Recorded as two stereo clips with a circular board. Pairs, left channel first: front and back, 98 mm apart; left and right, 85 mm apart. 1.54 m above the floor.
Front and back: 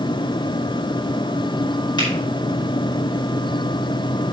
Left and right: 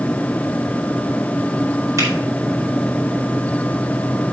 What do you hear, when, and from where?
2.0 s a finger snap: 40° right, 4.5 m